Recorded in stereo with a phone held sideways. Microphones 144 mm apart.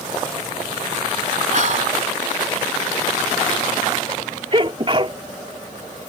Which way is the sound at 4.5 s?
40° right (ahead or behind).